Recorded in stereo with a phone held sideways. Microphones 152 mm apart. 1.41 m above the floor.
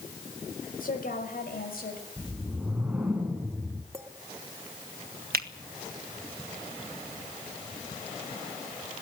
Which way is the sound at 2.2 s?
10° right (ahead or behind).